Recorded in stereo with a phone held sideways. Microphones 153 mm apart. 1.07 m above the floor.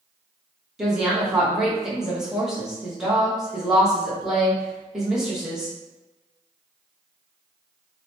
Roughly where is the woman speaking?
Centre.